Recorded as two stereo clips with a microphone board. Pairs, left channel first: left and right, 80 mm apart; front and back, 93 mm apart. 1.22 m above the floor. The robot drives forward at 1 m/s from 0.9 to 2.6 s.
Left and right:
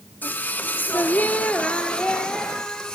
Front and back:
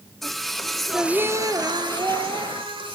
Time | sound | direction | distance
0.2 | singing | 85° left | 0.7 m